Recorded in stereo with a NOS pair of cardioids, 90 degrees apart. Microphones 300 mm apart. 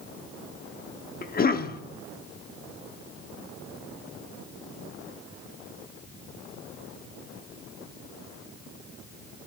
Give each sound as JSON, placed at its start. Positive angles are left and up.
{"t": 1.2, "sound": "a cough", "azimuth_deg": 30, "distance_m": 0.9}